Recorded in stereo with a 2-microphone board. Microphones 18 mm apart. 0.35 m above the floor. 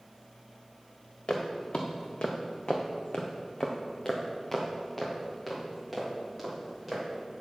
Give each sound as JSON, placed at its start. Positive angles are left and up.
{"t": 1.3, "sound": "footsteps", "side_deg": 60, "distance_m": 1.5}